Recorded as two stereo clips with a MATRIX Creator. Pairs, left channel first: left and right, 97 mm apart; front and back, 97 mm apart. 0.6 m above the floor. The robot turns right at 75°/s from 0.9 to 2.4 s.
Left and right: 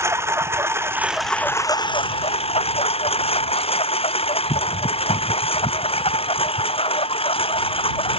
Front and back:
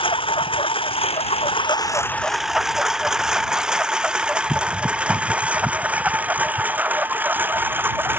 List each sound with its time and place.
0.0 s a lawn mower: 25° right; by 8.2 s 110° left